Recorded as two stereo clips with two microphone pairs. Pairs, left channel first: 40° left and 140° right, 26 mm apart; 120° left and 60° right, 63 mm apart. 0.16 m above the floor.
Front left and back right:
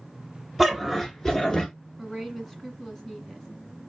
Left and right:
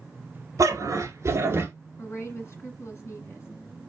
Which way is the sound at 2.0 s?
105° left.